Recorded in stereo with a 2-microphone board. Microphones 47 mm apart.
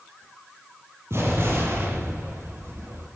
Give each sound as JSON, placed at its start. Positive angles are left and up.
{"t": 1.1, "sound": "an explosion", "side_deg": -65, "distance_m": 10.0}